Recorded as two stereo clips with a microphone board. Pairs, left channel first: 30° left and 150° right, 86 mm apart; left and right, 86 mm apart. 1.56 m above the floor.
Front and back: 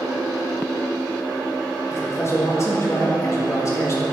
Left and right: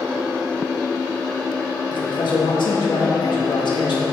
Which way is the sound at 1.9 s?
80° left.